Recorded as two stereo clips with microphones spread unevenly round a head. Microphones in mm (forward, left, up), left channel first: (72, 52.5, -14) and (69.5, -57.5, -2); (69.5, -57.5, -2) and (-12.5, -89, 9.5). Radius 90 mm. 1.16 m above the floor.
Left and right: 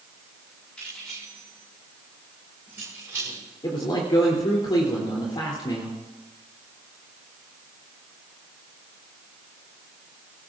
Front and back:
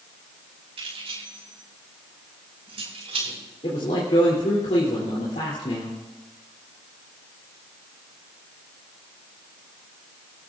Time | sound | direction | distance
0.8 | keys jangling | 175° left | 5.5 m
3.6 | a man speaking | 45° left | 3 m